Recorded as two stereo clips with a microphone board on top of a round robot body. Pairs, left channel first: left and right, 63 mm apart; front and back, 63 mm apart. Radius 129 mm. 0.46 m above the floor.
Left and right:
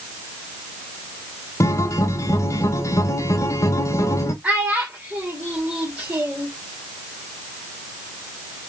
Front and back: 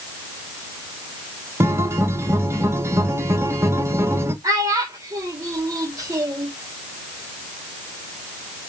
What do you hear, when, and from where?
1.6 s a guitar: 135° left, 1.0 m
4.4 s a child speaking: 160° right, 1.7 m